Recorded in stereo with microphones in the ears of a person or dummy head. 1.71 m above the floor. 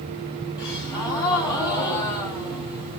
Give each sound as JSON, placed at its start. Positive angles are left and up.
{"t": 0.6, "sound": "a gasp", "side_deg": 20, "distance_m": 2.0}